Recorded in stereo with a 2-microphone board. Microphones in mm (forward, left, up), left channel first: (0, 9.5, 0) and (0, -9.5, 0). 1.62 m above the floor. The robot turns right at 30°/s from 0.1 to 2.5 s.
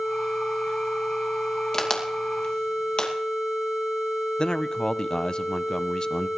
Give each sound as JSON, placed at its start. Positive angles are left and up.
{"t": 1.7, "sound": "a crack", "side_deg": 25, "distance_m": 2.5}
{"t": 4.4, "sound": "a man speaking", "side_deg": 40, "distance_m": 0.6}